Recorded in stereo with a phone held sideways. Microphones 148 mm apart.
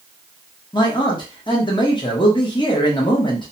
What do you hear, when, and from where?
0.7 s a man speaking: 30° left (ahead or behind), 0.7 m